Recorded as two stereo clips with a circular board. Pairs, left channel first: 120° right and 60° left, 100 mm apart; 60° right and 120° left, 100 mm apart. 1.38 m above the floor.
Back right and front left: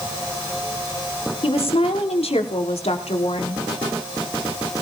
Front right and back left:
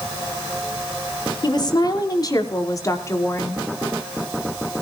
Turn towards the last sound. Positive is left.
turn(degrees=-125)